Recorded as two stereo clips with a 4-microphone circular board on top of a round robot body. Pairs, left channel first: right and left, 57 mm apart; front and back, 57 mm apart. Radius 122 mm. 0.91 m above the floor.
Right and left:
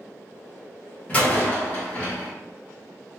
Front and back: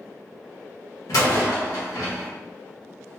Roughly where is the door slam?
Ahead.